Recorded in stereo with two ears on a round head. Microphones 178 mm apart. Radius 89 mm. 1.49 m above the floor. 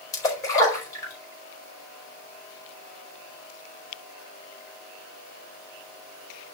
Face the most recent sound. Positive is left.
turn(degrees=15)  # may be behind; listen again after turning